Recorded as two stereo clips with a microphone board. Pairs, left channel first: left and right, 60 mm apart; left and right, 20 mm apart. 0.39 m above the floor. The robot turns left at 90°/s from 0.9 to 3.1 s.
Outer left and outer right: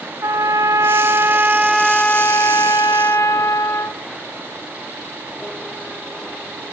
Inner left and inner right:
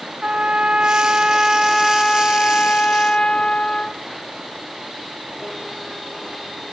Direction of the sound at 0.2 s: 100° right.